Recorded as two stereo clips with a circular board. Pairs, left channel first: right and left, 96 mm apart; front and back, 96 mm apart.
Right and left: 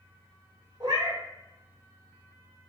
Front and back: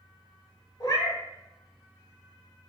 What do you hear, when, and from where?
0.8 s a cat meowing: 50° left, 0.9 m